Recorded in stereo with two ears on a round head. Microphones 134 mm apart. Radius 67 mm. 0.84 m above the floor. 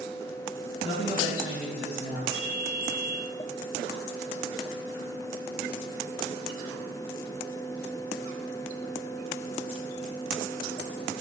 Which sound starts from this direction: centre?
A ringtone, at 2.3 s.